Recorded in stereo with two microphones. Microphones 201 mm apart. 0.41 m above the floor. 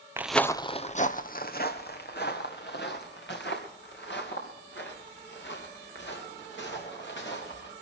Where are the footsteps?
15° right (ahead or behind), 0.5 m; by 7.7 s 70° left (ahead or behind), 6 m.